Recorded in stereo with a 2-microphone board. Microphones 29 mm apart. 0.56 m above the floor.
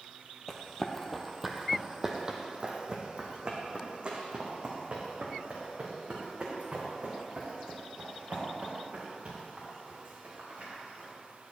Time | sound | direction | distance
0.5 | running footsteps | 20° left (ahead or behind) | 1.1 m